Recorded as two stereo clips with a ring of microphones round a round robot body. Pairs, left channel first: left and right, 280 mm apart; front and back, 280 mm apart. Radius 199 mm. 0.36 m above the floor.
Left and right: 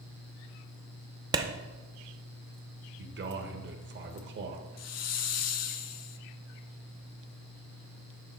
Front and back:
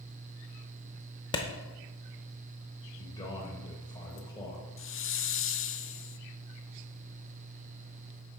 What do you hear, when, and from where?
1.3 s a clap: 40° right, 0.6 m
3.0 s a man speaking: 70° right, 1.0 m
4.8 s a hiss: 50° left, 0.5 m